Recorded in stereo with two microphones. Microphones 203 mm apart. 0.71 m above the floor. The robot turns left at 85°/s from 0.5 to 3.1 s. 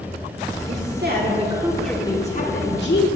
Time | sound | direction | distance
0.7 | a woman speaking | 85° right | 1.7 m